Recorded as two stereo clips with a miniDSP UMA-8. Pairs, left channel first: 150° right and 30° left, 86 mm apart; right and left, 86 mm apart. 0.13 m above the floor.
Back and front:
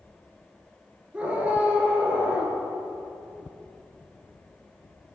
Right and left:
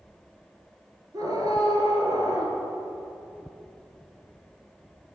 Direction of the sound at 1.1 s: 100° left.